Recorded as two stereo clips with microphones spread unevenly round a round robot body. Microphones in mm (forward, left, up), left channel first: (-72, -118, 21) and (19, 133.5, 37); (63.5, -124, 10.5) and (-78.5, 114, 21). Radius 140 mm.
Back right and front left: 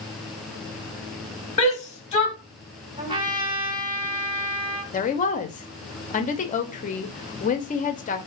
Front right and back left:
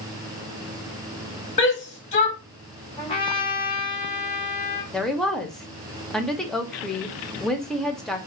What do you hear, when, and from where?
1.6 s a shout: 85° right, 0.8 m
3.0 s a trumpet: straight ahead, 1.0 m
4.9 s a woman speaking: 145° right, 0.6 m